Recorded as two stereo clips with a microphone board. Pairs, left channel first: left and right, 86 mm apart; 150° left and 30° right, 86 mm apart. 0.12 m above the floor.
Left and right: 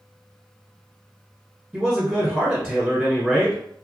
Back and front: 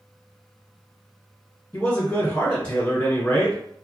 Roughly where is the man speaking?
Behind.